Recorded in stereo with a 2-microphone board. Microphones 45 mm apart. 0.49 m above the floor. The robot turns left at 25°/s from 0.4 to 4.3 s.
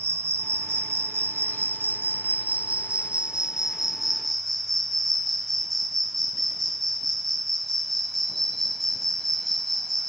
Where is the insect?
85° right, 1.0 m; by 10.1 s 175° left, 1.0 m.